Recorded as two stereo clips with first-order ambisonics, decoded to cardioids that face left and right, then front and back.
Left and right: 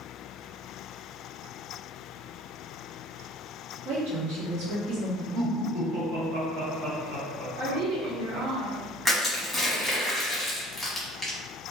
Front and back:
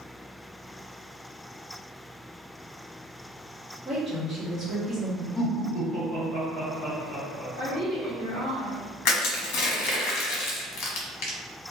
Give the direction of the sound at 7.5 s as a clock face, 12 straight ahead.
3 o'clock.